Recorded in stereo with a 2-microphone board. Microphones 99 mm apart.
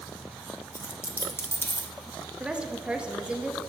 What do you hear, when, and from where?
0.7 s a dropped coin: 25° left (ahead or behind), 0.9 m
2.4 s a woman speaking: 10° right (ahead or behind), 0.9 m